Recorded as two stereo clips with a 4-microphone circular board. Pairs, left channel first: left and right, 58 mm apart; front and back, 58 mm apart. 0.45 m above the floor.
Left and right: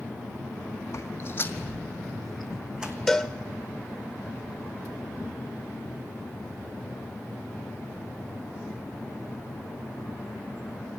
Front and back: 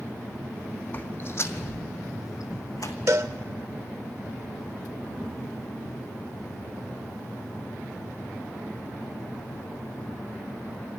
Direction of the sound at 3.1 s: 170° left.